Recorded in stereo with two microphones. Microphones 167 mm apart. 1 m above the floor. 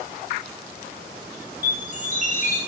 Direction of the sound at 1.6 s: 50° right (ahead or behind).